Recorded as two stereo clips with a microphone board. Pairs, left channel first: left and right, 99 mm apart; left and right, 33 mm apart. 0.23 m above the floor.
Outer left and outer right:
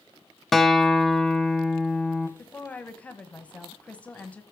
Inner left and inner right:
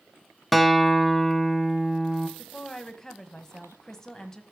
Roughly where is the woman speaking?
Centre.